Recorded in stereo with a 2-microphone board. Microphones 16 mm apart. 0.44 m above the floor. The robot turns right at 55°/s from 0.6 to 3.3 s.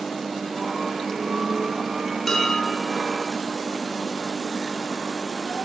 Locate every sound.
2.3 s dishes clattering: 30° left (ahead or behind), 5.5 m; by 2.7 s 55° left (ahead or behind), 5.5 m